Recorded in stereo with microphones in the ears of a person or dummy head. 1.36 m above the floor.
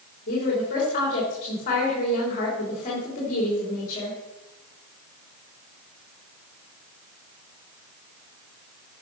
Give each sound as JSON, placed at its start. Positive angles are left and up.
{"t": 0.3, "sound": "a woman speaking", "side_deg": 45, "distance_m": 3.0}